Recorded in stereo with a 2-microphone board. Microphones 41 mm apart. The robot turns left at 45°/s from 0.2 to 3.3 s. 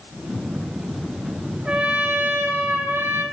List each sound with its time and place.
1.6 s a trumpet: 30° right, 3 m; by 3.2 s 100° right, 3 m